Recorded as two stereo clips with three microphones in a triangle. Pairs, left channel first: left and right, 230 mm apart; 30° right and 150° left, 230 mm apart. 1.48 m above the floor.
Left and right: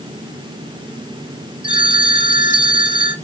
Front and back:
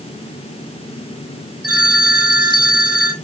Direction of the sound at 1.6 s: 145° left.